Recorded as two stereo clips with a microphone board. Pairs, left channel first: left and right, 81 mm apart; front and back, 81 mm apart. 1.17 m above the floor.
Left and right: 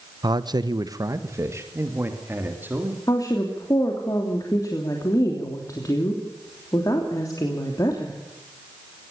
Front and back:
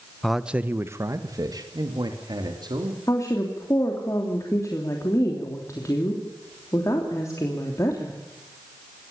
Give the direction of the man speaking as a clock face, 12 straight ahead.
3 o'clock.